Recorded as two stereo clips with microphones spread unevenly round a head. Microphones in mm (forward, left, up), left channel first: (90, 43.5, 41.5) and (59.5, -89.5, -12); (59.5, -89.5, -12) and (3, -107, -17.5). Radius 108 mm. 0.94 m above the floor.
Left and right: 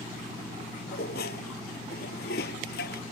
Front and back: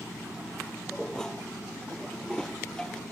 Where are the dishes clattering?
105° left.